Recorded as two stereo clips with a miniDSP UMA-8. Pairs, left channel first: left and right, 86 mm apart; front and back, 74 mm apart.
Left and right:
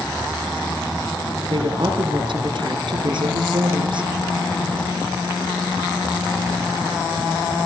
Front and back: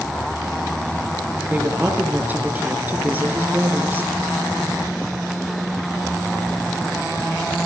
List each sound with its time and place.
1.5 s a woman speaking: 115° right, 5 m